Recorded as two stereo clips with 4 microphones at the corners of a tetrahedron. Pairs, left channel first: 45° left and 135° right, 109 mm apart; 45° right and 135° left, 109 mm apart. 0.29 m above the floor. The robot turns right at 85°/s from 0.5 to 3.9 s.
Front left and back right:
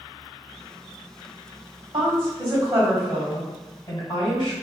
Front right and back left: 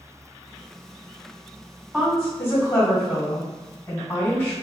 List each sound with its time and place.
1.9 s a woman speaking: 145° right, 2.0 m; by 4.5 s 20° left, 2.0 m